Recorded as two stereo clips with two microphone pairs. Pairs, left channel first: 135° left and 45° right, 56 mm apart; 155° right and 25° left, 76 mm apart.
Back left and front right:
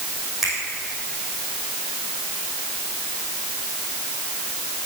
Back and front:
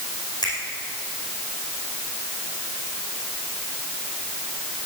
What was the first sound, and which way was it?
A finger snap, 130° right.